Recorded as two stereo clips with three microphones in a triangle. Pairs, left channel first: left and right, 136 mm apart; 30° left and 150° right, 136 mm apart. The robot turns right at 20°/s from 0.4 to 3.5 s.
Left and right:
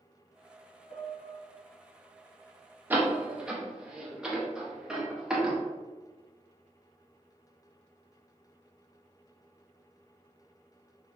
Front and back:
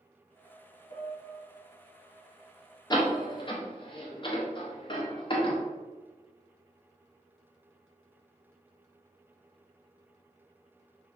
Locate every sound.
0.9 s a piano: 50° left, 0.6 m; by 1.4 s 60° left, 0.6 m
2.9 s a door slam: 20° right, 0.5 m; by 5.6 s 5° right, 0.5 m